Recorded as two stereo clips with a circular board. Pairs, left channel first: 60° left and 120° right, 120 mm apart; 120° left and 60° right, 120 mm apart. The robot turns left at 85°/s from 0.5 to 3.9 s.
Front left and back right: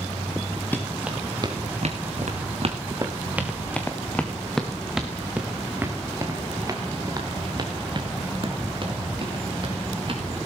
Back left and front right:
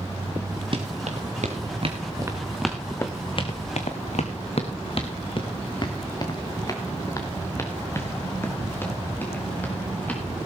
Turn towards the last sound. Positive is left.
turn(degrees=-160)